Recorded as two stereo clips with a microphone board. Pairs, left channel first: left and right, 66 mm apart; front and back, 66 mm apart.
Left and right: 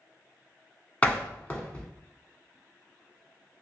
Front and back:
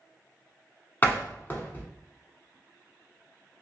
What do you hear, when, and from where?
1.0 s a door slam: 35° left, 0.8 m